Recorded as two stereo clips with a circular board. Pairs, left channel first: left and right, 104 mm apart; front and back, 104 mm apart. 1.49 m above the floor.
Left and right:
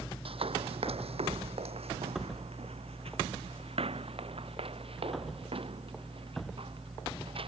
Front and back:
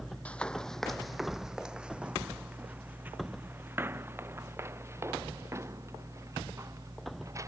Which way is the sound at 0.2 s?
75° right.